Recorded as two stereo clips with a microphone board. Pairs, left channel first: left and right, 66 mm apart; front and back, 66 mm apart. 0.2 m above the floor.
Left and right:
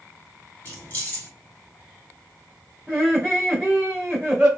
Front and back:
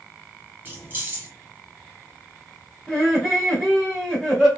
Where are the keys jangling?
140° left, 1.3 m.